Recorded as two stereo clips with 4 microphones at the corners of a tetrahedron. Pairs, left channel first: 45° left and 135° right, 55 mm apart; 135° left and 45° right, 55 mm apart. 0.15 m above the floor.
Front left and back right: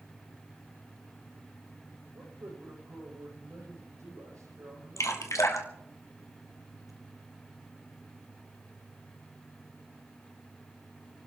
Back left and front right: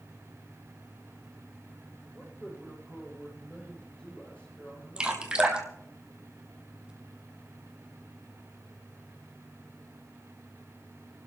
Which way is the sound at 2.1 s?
160° right.